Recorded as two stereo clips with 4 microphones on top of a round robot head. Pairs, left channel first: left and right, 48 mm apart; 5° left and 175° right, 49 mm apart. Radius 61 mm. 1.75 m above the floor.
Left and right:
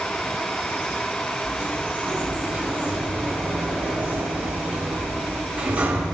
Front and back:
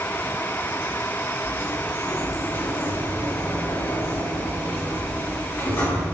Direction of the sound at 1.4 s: 35° right.